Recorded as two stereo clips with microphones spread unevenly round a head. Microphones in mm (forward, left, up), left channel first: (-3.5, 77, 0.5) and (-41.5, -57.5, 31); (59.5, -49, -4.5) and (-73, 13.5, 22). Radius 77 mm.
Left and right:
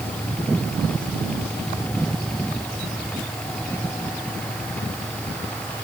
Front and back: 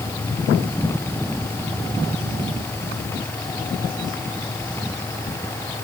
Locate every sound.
Only background noise.